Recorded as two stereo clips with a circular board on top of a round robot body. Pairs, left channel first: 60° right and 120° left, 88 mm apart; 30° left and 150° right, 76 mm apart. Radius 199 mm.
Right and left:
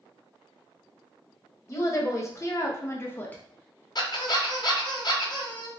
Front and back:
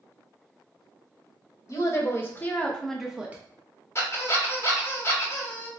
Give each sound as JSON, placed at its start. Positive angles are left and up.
{"t": 1.7, "sound": "a woman speaking", "azimuth_deg": -10, "distance_m": 1.5}
{"t": 4.0, "sound": "a squeak", "azimuth_deg": -25, "distance_m": 1.2}